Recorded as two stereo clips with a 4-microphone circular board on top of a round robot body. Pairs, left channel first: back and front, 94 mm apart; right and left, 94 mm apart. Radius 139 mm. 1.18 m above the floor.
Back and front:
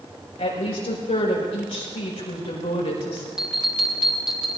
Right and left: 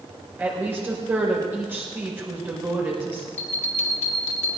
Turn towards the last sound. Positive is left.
turn(degrees=-85)